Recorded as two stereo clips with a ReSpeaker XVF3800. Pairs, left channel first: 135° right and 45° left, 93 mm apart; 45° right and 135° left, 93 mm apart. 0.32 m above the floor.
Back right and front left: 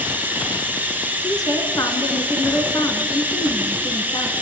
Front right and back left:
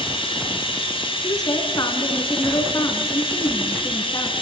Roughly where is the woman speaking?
Right.